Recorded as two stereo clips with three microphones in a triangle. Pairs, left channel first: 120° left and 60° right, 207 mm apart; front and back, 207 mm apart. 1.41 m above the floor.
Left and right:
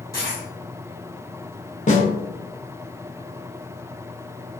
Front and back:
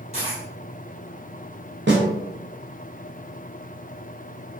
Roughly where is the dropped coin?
Behind.